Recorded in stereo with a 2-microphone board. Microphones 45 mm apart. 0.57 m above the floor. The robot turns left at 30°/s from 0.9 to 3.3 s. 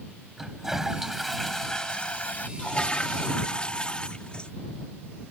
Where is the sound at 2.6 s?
25° left (ahead or behind).